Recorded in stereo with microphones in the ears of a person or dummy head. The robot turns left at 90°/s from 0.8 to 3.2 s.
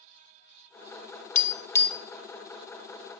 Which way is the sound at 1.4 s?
50° left (ahead or behind).